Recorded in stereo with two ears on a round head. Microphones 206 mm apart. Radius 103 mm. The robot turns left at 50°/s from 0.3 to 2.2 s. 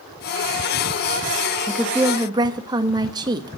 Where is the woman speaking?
10° left (ahead or behind), 0.9 m; by 3.6 s 20° right (ahead or behind), 0.9 m.